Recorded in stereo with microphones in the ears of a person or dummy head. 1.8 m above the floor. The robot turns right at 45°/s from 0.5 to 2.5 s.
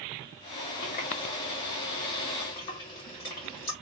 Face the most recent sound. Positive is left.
turn(degrees=10)  # may be behind; listen again after turning